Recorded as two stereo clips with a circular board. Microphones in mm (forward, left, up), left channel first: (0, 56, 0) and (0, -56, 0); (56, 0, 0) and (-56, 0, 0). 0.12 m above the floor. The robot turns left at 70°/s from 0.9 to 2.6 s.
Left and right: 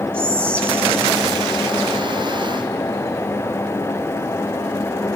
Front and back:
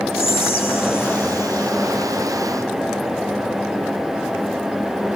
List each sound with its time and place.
0.1 s whispering: 30° left, 1.4 m; by 1.7 s 25° right, 1.4 m